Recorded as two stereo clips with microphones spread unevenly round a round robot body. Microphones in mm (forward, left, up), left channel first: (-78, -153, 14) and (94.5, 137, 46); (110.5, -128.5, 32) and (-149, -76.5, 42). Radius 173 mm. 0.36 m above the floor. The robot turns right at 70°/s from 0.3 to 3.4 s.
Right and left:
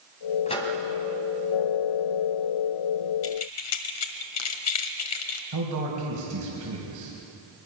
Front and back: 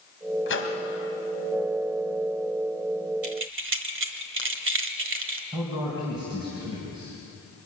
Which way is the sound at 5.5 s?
95° left.